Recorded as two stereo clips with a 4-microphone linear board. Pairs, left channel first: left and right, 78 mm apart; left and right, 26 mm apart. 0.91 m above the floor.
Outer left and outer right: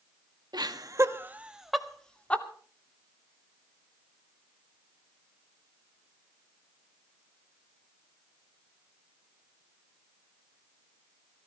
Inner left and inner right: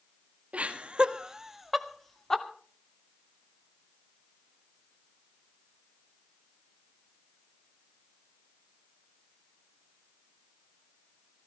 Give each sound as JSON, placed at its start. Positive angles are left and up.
{"t": 0.5, "sound": "laughter", "side_deg": -60, "distance_m": 1.7}